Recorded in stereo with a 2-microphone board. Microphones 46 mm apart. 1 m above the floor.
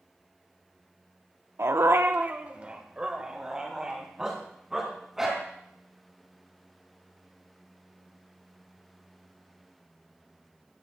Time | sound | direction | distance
1.6 | a dog barking | 60° right (ahead or behind) | 0.7 m